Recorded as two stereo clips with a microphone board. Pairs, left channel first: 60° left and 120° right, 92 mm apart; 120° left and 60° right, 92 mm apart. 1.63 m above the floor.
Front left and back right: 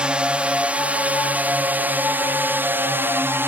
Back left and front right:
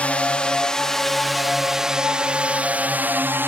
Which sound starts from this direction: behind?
A drone, at 0.0 s.